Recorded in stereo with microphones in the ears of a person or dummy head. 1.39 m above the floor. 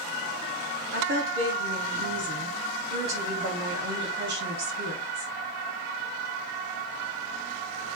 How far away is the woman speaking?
About 3 m.